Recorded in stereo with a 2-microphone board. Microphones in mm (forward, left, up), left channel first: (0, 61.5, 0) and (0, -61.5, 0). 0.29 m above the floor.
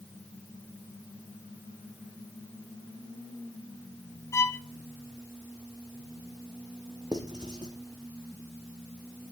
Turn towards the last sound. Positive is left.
turn(degrees=-35)  # may be behind; listen again after turning